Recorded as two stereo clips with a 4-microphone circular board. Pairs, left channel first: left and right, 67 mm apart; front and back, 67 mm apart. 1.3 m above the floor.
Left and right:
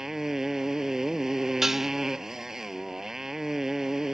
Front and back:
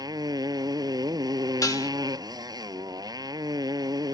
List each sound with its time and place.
0.0 s a motorcycle: 175° right
1.6 s dishes clattering: 5° right